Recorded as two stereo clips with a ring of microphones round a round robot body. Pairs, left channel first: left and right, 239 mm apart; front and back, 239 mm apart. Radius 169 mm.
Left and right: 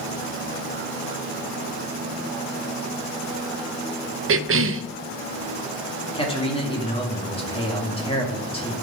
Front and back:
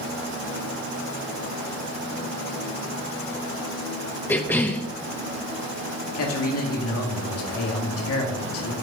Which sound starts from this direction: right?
A cough, at 4.3 s.